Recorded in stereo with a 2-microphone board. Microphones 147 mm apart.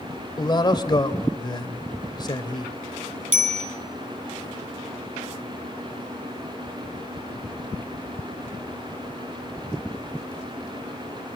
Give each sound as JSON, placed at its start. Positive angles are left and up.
{"t": 0.4, "sound": "a man speaking", "side_deg": 35, "distance_m": 2.0}
{"t": 3.3, "sound": "a bicycle bell", "side_deg": -65, "distance_m": 3.5}